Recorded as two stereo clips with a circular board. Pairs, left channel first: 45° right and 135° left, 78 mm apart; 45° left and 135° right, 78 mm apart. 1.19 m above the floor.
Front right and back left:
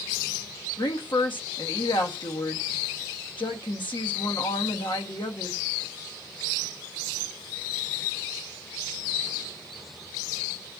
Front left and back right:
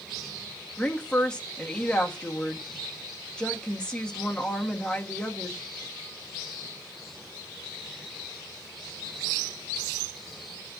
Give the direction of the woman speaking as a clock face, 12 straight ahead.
1 o'clock.